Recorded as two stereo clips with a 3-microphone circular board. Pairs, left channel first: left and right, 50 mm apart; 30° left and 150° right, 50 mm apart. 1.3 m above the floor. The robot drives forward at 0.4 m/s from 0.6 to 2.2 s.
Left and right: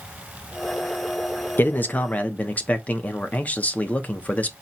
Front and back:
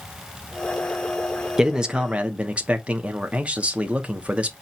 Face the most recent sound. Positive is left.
turn(degrees=150)